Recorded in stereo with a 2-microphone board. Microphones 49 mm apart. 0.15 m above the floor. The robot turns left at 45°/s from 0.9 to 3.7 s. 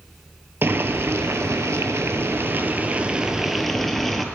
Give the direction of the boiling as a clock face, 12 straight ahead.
2 o'clock.